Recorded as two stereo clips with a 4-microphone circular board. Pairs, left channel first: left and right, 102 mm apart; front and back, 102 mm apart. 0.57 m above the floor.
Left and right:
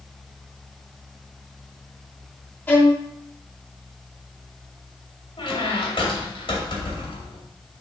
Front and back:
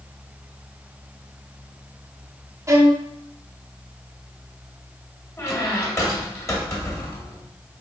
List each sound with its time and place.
2.7 s a violin: 145° left, 1.3 m
5.4 s a squeak: 60° left, 2 m